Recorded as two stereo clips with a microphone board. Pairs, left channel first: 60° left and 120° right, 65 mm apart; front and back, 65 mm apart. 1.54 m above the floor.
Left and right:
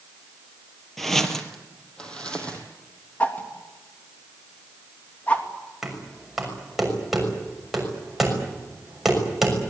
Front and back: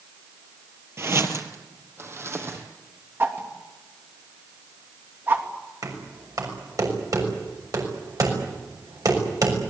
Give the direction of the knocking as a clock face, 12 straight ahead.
7 o'clock.